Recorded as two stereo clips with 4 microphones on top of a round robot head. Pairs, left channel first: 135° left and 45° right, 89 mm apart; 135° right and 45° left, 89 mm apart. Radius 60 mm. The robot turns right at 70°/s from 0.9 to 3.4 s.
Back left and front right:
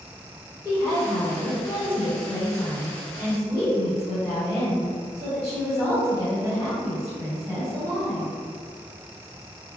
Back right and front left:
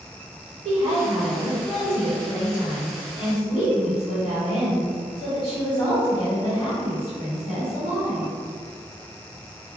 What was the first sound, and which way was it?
A woman speaking, 80° left.